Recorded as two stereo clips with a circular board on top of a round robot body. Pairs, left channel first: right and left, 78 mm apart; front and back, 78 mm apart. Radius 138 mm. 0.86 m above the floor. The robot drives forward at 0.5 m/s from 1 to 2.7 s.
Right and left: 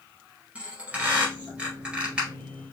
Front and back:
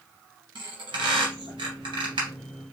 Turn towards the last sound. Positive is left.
turn(degrees=170)